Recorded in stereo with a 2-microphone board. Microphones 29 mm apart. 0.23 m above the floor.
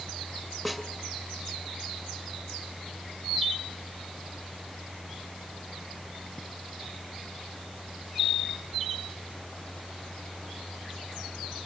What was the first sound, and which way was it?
A snare drum, 5° left (ahead or behind).